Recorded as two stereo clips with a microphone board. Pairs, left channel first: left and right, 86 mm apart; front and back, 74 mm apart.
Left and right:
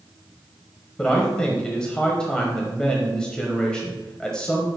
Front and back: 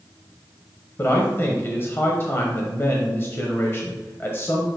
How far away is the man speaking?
About 1.0 m.